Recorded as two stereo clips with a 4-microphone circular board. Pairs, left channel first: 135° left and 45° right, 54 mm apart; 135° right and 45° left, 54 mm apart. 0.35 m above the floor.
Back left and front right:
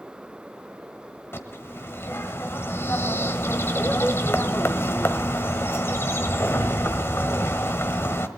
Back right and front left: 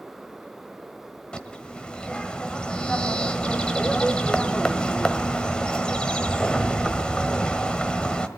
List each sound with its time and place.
1.3 s a bird: 155° left, 1.3 m